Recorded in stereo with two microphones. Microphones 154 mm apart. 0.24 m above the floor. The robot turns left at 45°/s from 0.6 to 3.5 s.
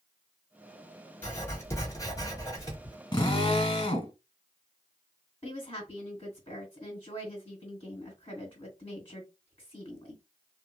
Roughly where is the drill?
Left.